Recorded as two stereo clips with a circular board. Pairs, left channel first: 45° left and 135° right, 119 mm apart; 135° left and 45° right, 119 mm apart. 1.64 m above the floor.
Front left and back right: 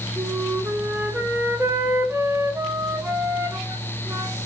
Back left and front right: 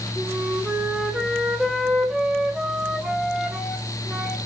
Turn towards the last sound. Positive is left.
turn(degrees=-120)